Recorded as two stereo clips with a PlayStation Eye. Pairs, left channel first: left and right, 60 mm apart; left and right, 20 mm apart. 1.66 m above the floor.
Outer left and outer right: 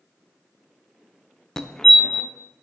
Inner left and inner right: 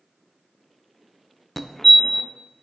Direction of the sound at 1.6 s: 10° left (ahead or behind).